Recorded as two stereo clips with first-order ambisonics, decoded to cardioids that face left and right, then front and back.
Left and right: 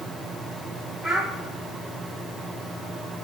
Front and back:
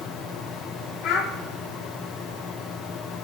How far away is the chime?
I don't hear a chime.